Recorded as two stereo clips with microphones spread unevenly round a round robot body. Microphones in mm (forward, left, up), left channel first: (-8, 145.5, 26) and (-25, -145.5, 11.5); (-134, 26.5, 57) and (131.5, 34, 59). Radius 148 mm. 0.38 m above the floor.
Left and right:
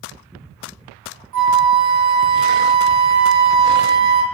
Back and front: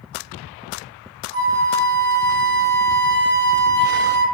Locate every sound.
1.3 s a flute: 45° right, 1.3 m